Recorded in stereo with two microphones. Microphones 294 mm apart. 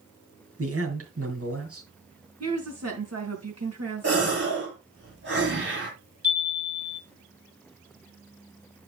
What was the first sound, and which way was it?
A man speaking, 50° right (ahead or behind).